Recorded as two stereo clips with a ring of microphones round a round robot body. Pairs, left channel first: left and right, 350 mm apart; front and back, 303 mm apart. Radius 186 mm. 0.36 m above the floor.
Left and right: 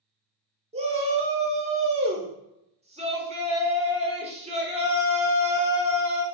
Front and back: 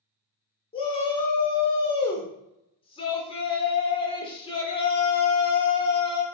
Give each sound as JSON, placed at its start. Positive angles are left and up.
{"t": 0.7, "sound": "a shout", "azimuth_deg": -45, "distance_m": 1.0}